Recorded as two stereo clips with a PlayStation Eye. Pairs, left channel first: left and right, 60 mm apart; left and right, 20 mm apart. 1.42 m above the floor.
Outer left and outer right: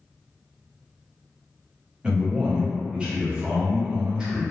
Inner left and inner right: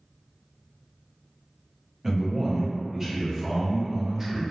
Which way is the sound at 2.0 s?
15° right (ahead or behind).